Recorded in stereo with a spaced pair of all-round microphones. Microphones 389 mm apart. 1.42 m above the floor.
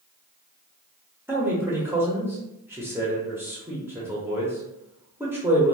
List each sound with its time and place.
1.3 s a man speaking: 5° right (ahead or behind), 0.7 m